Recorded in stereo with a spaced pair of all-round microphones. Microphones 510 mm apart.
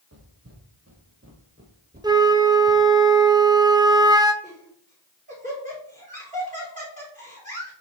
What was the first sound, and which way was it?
Footsteps, 30° right (ahead or behind).